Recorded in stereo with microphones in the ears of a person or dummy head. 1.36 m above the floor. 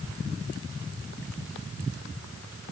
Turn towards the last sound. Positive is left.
No sound to turn to.